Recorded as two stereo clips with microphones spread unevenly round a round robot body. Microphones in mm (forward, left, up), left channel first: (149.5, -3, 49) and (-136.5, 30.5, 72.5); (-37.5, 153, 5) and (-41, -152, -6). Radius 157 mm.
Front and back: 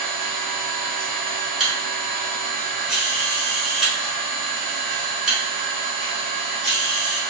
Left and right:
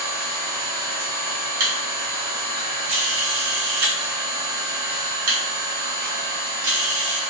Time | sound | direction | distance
0.0 | an engine running | 95° right | 1.4 m
1.6 | a camera shutter | 95° right | 1.3 m